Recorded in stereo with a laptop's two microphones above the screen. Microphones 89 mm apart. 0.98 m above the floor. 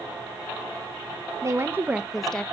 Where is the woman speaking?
35° right (ahead or behind), 0.8 m; by 2.4 s 15° left (ahead or behind), 0.6 m.